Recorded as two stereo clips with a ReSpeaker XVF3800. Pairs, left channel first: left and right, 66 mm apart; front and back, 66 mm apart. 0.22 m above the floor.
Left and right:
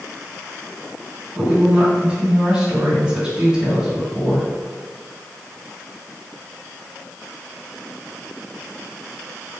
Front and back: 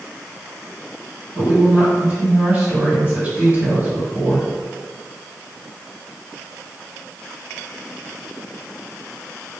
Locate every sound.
1.4 s a woman speaking: 150° right, 1.6 m